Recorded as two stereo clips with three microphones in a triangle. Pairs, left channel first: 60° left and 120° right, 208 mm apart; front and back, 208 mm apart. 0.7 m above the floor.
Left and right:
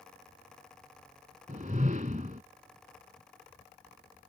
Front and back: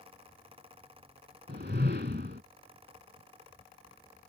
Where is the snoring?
I don't hear snoring.